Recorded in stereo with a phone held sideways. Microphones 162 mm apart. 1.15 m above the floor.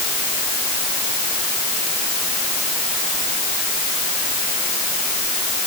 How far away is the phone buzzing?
No phone buzzing in this recording.